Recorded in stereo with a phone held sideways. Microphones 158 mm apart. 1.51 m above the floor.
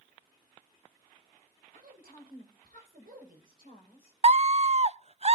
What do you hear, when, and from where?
1.7 s a woman speaking: 80° right, 6 m
4.2 s a scream: 45° right (ahead or behind), 0.5 m